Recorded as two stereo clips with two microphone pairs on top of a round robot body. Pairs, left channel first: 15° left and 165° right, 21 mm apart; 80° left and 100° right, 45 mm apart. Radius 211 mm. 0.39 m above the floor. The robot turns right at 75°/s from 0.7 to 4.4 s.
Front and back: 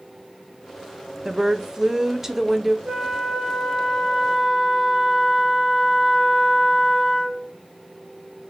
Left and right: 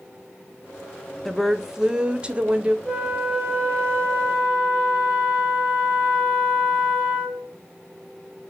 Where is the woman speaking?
165° left, 0.9 m; by 2.8 s 85° right, 0.9 m.